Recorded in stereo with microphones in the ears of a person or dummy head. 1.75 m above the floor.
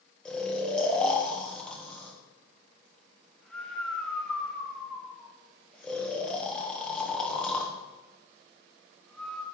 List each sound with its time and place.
0.2 s snoring: 5° left (ahead or behind), 1.3 m